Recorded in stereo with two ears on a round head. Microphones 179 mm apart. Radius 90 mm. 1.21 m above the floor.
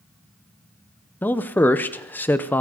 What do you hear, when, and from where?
1.2 s a man speaking: 10° left (ahead or behind), 0.6 m